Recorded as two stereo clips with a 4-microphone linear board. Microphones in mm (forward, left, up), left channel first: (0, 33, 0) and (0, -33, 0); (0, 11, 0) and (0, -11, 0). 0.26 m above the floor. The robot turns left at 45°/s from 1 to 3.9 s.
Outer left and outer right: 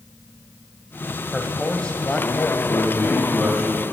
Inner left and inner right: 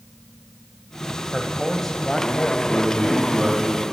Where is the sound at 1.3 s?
5° left (ahead or behind), 1.0 m; by 2.6 s 25° left (ahead or behind), 1.0 m.